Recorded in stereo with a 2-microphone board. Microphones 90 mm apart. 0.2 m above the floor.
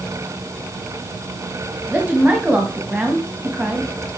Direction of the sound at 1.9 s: 20° right (ahead or behind).